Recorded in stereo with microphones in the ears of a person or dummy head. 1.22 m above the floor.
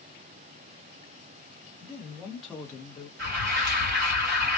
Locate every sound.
1.8 s a man speaking: 30° right (ahead or behind), 1.1 m; by 3.1 s 40° left (ahead or behind), 0.9 m
3.2 s an alarm: 55° right (ahead or behind), 1.6 m